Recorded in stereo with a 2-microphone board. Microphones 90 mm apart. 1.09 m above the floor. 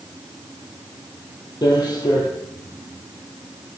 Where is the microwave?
I don't hear a microwave.